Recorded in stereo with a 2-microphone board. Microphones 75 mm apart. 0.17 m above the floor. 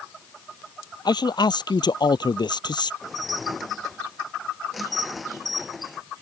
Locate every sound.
1.1 s a man speaking: 70° left (ahead or behind); by 2.9 s 75° left (ahead or behind)
3.0 s dishes clattering: centre (ahead or behind)